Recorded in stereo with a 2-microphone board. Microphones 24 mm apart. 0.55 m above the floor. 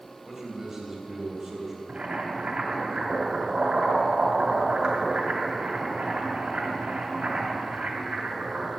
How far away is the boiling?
About 2 m.